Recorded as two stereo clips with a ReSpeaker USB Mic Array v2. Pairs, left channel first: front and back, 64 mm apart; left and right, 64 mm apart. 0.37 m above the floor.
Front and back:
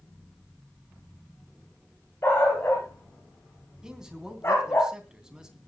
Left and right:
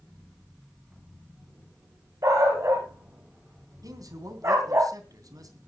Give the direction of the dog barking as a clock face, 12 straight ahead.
2 o'clock.